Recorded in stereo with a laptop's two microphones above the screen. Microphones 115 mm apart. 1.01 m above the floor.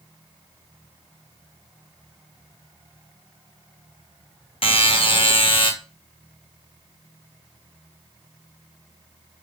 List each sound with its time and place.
4.6 s a buzzer: 50° left (ahead or behind), 1.2 m